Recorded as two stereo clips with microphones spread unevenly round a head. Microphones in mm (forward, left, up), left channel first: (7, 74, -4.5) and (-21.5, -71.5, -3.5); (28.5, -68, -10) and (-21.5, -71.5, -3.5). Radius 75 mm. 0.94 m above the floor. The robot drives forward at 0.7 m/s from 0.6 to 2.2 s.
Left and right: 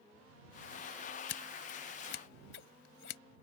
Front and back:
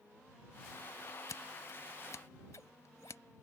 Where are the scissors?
60° left; by 3.2 s 65° left.